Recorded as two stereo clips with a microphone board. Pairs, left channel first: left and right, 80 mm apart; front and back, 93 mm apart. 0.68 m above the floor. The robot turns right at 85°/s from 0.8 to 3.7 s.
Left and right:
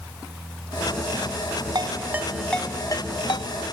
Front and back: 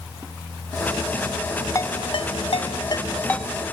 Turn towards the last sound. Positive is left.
turn(degrees=110)